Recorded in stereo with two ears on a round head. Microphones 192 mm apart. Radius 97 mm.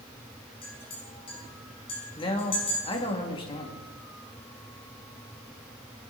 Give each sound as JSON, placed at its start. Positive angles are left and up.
{"t": 0.6, "sound": "a clink", "side_deg": 25, "distance_m": 5.5}
{"t": 2.2, "sound": "a man speaking", "side_deg": 25, "distance_m": 2.0}